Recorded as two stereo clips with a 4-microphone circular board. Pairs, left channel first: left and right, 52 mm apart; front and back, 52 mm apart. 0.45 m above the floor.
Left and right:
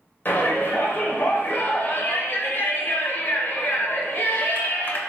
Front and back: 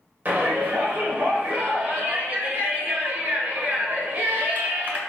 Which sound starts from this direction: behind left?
A shout, at 0.2 s.